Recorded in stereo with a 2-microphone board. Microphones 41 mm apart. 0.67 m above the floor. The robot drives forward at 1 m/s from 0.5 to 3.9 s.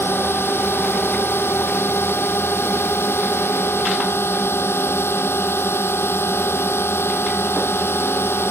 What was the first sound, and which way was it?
A drone, 75° left (ahead or behind).